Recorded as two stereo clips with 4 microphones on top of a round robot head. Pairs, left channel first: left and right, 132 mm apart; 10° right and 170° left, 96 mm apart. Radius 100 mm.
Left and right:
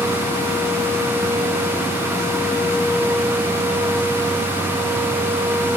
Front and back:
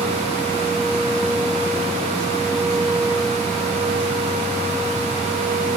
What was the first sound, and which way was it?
Only background noise.